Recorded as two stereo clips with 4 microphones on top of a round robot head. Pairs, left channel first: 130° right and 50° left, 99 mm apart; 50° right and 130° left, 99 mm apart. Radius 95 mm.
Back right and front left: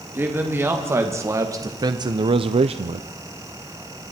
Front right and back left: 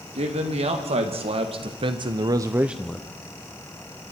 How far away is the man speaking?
About 3 m.